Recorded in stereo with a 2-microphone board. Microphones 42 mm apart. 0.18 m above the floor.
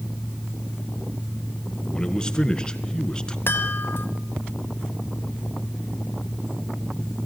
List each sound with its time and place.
1.9 s a man speaking: 15° left (ahead or behind), 1.9 m
3.5 s a chime: 55° left (ahead or behind), 2.0 m